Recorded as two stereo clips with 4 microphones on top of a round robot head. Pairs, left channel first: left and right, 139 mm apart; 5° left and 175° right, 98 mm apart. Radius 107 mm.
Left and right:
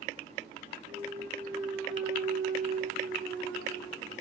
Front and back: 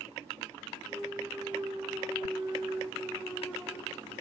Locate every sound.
0.9 s a clunk: 110° right, 4.5 m